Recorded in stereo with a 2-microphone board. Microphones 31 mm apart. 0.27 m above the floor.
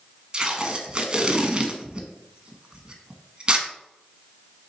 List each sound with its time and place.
0.3 s tape being pulled: 30° right (ahead or behind), 0.8 m